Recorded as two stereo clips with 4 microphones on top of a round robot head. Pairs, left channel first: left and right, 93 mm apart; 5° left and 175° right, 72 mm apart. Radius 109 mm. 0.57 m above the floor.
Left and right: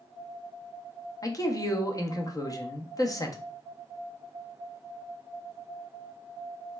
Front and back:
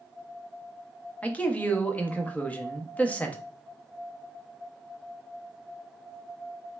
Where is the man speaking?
70° left, 0.7 m.